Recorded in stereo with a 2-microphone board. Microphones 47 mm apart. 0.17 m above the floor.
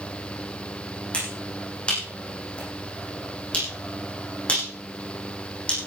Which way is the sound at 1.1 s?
25° left (ahead or behind).